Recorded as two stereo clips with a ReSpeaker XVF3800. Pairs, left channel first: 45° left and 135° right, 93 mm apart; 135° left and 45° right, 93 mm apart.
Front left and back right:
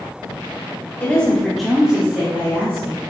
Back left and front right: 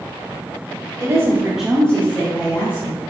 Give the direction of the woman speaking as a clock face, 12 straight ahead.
1 o'clock.